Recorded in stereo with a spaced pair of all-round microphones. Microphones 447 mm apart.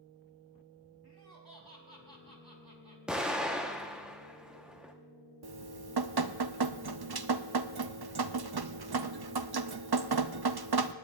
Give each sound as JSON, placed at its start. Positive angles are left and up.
{"t": 1.0, "sound": "laughter", "side_deg": -55, "distance_m": 4.0}
{"t": 3.1, "sound": "an explosion", "side_deg": 0, "distance_m": 1.1}
{"t": 5.4, "sound": "dripping", "side_deg": -55, "distance_m": 0.5}